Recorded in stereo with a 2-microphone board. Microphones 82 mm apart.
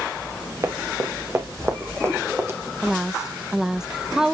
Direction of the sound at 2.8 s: 5° right (ahead or behind).